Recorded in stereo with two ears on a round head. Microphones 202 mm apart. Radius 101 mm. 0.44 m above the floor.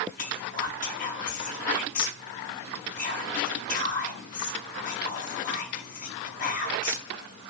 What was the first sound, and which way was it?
Whispering, 35° left (ahead or behind).